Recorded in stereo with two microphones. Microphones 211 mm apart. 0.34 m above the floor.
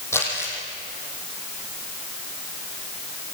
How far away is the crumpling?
About 6 m.